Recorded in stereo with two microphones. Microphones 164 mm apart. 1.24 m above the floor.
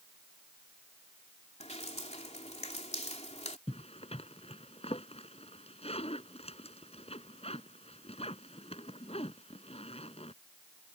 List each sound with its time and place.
1.6 s dripping: 40° left (ahead or behind)
3.7 s a zipper: 40° left (ahead or behind)